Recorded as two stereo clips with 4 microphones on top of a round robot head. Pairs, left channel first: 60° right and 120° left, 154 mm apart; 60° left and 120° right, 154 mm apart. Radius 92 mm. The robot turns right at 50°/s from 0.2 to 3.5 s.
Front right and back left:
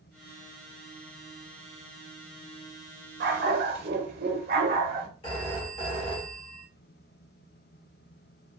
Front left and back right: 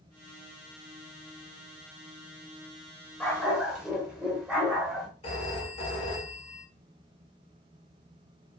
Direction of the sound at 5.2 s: 5° left.